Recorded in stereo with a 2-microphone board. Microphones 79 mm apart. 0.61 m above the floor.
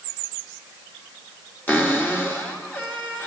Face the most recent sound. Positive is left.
turn(degrees=20)  # may be behind; listen again after turning